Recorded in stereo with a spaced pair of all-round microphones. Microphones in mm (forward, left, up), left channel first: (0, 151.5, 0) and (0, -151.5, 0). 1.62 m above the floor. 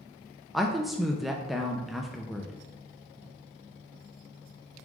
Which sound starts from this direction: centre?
A woman speaking, at 0.5 s.